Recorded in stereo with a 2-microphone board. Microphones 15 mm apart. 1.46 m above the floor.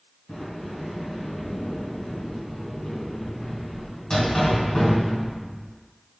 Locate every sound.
0.3 s a sliding door: 40° left (ahead or behind), 1.4 m